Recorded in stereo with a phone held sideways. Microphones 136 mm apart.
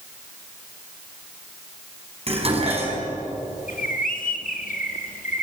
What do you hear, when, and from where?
2.3 s dishes clattering: 45° right (ahead or behind), 5 m
3.7 s a bird: 80° left, 2.0 m